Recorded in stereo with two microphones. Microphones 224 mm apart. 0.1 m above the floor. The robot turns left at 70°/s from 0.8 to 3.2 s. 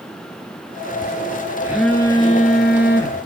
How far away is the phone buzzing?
About 1.0 m.